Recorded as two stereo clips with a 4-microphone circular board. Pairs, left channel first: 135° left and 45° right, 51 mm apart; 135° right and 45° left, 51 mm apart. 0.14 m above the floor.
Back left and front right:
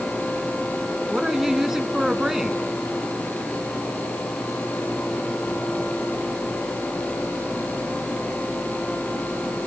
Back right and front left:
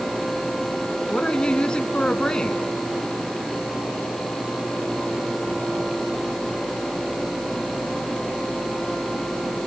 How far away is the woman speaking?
About 1.1 m.